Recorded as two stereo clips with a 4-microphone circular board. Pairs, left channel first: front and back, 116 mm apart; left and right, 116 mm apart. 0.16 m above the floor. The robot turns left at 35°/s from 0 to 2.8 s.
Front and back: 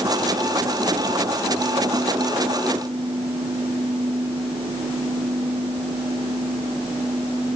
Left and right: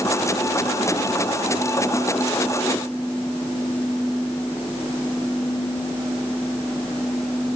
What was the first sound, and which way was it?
Only background noise.